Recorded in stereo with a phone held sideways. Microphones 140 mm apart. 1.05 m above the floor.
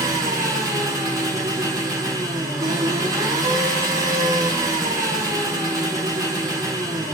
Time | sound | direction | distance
0.0 | an engine running | 25° right (ahead or behind) | 4 m